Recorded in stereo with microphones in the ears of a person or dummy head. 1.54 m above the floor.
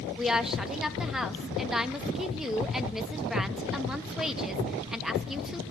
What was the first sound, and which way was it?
A woman speaking, 5° right (ahead or behind).